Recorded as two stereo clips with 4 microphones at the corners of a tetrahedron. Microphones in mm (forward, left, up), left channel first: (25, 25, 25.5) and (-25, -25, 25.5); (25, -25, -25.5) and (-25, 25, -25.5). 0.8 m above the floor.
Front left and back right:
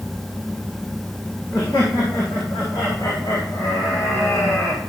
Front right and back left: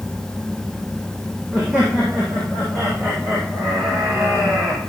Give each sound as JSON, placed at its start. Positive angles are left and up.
{"t": 1.5, "sound": "laughter", "azimuth_deg": 70, "distance_m": 6.5}